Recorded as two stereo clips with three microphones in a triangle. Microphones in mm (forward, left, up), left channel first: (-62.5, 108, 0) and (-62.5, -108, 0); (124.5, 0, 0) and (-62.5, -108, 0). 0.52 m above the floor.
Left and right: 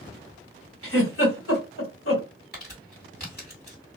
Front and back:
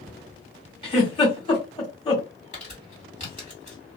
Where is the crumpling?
75° left, 1.7 m.